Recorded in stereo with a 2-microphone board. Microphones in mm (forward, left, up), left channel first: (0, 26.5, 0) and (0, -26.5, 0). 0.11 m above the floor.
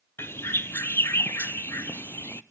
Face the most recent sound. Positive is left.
turn(degrees=50)  # may be behind; listen again after turning